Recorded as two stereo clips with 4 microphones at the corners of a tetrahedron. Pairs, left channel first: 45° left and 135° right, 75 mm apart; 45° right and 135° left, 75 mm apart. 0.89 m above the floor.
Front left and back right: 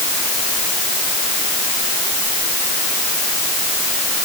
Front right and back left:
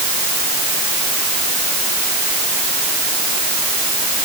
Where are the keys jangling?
No keys jangling in this recording.